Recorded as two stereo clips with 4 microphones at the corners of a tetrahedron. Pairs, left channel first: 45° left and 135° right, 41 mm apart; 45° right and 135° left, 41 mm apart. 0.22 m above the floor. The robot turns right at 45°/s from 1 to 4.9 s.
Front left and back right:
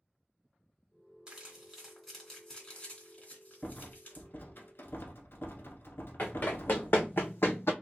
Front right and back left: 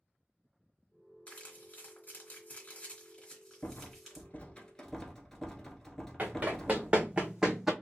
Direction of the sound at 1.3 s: 80° right.